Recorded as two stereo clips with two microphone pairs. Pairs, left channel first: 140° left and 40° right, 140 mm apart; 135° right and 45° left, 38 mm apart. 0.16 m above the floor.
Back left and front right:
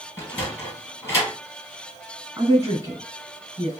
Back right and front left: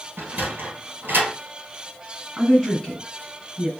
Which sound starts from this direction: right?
A woman speaking, at 2.4 s.